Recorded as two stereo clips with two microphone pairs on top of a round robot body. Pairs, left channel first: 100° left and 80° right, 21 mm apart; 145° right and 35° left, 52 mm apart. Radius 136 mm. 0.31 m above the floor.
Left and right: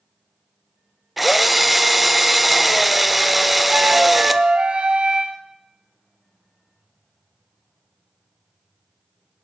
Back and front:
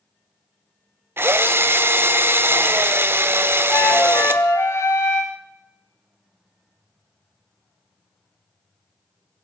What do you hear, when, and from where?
1.2 s a drill: 5° left, 0.7 m
3.7 s a flute: 110° right, 0.6 m